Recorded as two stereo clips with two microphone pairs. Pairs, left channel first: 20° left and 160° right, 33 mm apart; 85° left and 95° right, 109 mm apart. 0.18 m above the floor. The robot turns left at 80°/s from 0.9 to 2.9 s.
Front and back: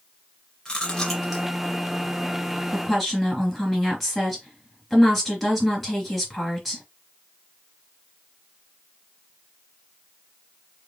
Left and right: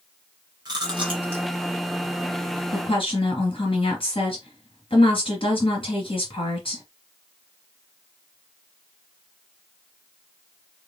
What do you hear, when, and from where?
0.7 s chewing: 45° right, 2.5 m; by 1.4 s 90° right, 2.5 m
2.7 s a woman speaking: 125° left, 3 m; by 6.8 s 110° left, 3 m